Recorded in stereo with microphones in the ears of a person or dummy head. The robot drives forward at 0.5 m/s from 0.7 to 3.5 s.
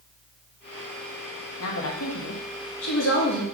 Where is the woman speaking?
80° left, 1.2 m; by 3.4 s 60° left (ahead or behind), 1.4 m.